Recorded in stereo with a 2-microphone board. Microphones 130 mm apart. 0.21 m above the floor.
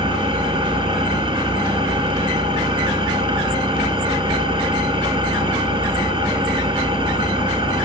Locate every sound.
0.0 s an engine running: 45° right (ahead or behind), 1.2 m